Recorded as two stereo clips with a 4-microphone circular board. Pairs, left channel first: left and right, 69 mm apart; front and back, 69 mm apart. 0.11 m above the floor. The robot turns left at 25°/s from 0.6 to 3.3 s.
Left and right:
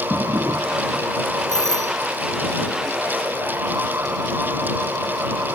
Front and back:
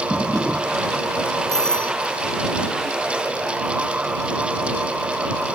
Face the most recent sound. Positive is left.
turn(degrees=40)